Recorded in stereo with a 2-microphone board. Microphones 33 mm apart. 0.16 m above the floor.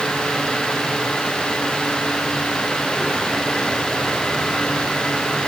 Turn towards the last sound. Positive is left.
No sound to turn to.